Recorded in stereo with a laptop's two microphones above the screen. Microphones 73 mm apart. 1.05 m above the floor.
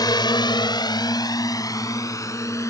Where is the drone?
70° left (ahead or behind); by 2.7 s 40° left (ahead or behind).